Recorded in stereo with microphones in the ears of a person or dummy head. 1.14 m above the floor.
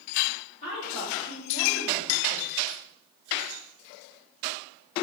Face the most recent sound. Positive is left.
turn(degrees=10)  # may be behind; listen again after turning